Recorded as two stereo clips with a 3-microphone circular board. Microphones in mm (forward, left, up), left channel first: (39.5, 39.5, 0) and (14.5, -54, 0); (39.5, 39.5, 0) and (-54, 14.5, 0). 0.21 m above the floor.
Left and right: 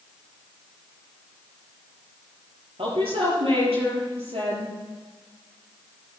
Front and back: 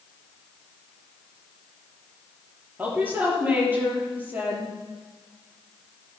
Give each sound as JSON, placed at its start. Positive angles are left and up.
{"t": 2.8, "sound": "a woman speaking", "azimuth_deg": -95, "distance_m": 5.5}